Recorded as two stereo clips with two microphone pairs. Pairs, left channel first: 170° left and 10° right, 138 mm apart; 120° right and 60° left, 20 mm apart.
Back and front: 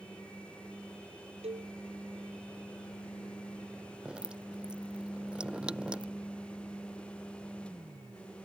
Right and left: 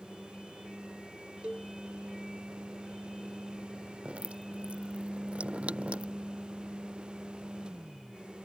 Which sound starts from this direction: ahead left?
A cowbell, at 1.4 s.